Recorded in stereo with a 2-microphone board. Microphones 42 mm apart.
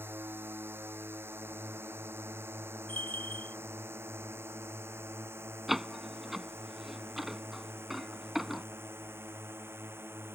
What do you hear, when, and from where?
0.0 s a drone: 65° right (ahead or behind); by 10.3 s 70° right (ahead or behind)
2.9 s a bell: 40° left (ahead or behind)
5.7 s a door slam: 5° right (ahead or behind)